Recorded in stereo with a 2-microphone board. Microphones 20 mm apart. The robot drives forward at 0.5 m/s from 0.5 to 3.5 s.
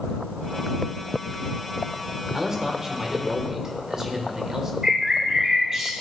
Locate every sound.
2.3 s a man speaking: 25° right (ahead or behind), 1.5 m
4.8 s a bird: 30° right (ahead or behind), 2.5 m